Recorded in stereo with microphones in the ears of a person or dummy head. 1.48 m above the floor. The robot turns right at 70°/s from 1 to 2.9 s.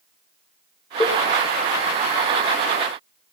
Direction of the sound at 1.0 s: 15° left (ahead or behind).